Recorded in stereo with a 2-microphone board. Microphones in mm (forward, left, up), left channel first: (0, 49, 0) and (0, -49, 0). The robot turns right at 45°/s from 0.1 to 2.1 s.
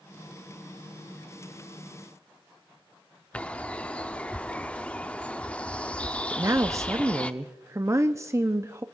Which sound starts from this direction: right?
A woman speaking, at 6.3 s.